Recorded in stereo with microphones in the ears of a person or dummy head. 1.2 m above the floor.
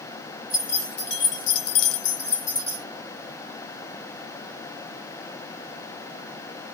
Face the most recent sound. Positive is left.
turn(degrees=25)  # may be behind; listen again after turning